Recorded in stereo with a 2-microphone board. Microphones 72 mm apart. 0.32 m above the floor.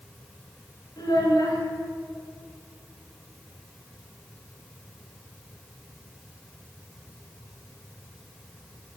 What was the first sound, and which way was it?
A child speaking, 65° left (ahead or behind).